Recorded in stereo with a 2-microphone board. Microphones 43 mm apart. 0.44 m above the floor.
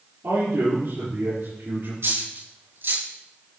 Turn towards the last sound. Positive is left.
turn(degrees=-65)  # may be behind; listen again after turning